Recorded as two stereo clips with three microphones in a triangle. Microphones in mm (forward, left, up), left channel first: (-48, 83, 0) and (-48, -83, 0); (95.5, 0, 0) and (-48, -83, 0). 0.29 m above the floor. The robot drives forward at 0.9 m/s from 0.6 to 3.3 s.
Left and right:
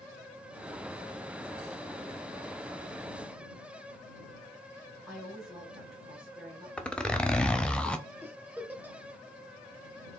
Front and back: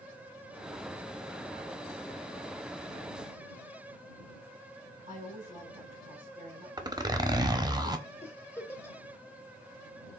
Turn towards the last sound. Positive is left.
turn(degrees=-25)